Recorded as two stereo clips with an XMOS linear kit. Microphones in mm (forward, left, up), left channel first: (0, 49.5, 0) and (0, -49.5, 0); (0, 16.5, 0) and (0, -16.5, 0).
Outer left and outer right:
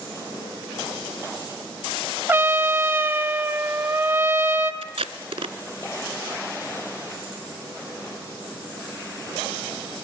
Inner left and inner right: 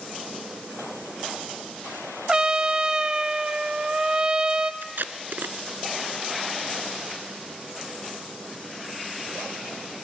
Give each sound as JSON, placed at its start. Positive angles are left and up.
{"t": 2.3, "sound": "a trumpet", "side_deg": -25, "distance_m": 0.8}
{"t": 4.8, "sound": "tape being pulled", "side_deg": -85, "distance_m": 0.7}